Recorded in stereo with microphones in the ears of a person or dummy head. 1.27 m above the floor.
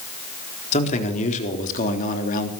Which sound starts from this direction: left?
A man speaking, at 0.7 s.